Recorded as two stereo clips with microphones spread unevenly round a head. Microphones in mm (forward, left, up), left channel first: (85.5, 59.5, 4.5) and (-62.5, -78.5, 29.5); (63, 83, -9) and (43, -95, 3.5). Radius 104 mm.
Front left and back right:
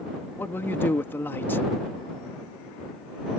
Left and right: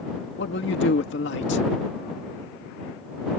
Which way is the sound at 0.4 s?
125° left.